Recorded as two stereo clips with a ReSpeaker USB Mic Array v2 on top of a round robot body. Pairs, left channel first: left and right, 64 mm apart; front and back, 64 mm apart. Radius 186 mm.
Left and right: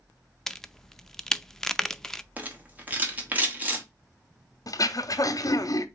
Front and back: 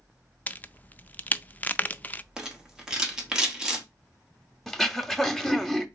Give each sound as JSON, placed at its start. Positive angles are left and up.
{"t": 0.5, "sound": "a crack", "azimuth_deg": 15, "distance_m": 0.6}
{"t": 2.4, "sound": "a rattle", "azimuth_deg": -115, "distance_m": 1.6}
{"t": 4.7, "sound": "throat clearing", "azimuth_deg": 85, "distance_m": 0.8}